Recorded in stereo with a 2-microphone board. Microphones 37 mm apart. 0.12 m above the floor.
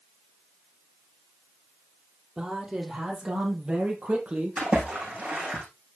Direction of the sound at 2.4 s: 20° right (ahead or behind).